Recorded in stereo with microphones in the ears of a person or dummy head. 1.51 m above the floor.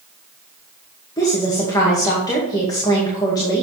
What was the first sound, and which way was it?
A woman speaking, 20° left (ahead or behind).